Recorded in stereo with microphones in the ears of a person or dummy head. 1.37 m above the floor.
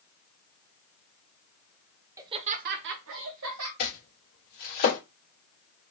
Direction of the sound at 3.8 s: 45° left (ahead or behind).